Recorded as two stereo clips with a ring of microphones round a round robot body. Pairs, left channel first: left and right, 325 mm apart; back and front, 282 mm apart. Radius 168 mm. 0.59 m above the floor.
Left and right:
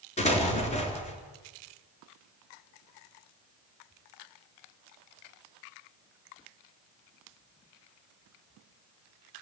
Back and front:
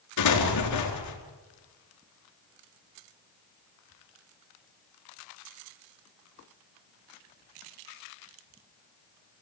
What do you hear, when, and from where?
0.2 s an explosion: 160° left, 4 m